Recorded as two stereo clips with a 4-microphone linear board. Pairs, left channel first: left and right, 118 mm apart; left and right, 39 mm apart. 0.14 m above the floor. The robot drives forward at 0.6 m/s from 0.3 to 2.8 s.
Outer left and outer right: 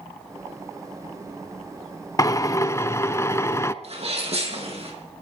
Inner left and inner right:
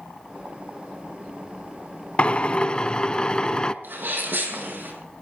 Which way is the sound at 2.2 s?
30° left (ahead or behind).